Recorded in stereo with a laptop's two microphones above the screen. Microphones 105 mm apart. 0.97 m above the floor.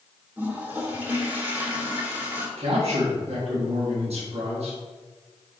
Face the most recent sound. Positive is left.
turn(degrees=-75)  # may be behind; listen again after turning